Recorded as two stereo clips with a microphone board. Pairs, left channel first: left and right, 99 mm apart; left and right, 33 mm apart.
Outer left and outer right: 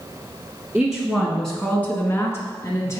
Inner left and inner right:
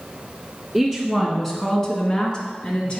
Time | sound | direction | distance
0.7 | a woman speaking | 5° right (ahead or behind) | 1.7 m